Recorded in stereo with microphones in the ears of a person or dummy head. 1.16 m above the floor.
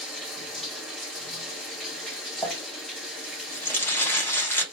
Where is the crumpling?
10° left (ahead or behind), 1.0 m.